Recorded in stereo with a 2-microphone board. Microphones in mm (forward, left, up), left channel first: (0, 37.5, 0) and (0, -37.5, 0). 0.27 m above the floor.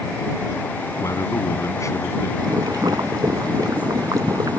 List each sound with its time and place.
1.0 s a man speaking: 45° left (ahead or behind)
2.4 s boiling: 60° right (ahead or behind)